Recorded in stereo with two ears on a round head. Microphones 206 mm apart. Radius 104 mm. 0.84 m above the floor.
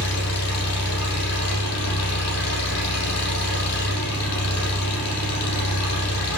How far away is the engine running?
About 8.5 m.